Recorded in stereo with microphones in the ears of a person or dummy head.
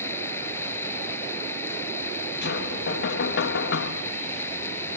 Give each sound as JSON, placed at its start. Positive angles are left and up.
{"t": 0.0, "sound": "running water", "side_deg": 15}
{"t": 2.4, "sound": "knocking", "side_deg": 60}